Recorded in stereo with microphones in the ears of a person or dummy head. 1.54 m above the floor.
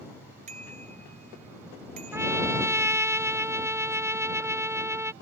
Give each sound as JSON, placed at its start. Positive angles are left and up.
{"t": 0.5, "sound": "a bicycle bell", "side_deg": -40}
{"t": 2.1, "sound": "a trumpet", "side_deg": -10}